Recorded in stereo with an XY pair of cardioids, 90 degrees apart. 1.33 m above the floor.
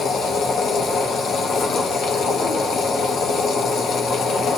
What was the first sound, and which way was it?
A machine running, 70° left.